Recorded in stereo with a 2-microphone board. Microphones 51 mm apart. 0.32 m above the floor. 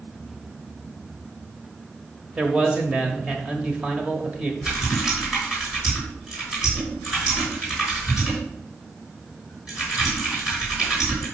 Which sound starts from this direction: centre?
Typing on a keyboard, at 4.6 s.